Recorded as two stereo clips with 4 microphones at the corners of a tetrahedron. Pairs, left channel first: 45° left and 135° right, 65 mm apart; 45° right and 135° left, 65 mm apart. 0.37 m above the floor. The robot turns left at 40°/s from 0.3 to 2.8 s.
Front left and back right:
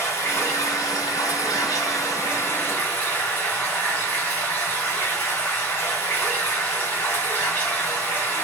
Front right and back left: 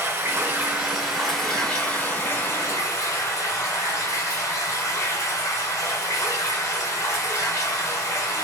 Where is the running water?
85° left, 1.3 m; by 8.4 s 15° right, 1.3 m.